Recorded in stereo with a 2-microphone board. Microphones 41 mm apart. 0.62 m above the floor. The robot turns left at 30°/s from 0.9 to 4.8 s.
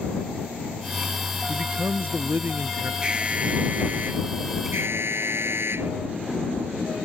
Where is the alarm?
25° right; by 5.9 s 75° right.